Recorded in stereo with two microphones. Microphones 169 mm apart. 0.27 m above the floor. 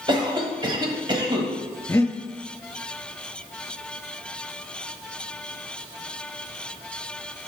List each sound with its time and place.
0.1 s a cough: 30° right (ahead or behind), 1.3 m
1.9 s breathing: 15° left (ahead or behind), 0.8 m